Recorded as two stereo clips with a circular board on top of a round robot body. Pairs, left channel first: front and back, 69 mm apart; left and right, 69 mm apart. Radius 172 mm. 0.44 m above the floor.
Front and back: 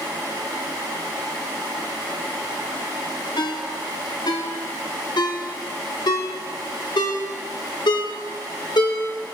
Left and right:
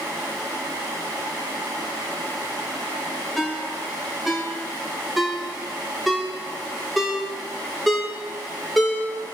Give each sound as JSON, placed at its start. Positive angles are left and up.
{"t": 3.4, "sound": "a ringtone", "azimuth_deg": 0, "distance_m": 2.0}